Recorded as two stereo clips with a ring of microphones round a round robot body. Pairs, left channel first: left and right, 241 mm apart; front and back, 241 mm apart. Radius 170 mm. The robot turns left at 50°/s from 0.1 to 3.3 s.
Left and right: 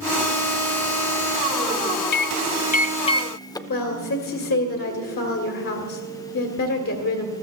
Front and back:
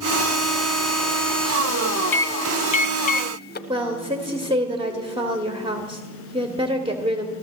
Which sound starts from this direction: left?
A microwave, at 2.1 s.